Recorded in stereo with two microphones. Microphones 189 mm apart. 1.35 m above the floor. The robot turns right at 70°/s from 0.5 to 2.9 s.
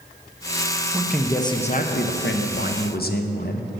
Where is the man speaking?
15° right, 0.6 m; by 3.7 s 125° left, 0.6 m.